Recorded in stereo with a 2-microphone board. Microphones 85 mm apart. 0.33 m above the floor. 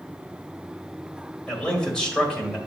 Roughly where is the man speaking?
Centre.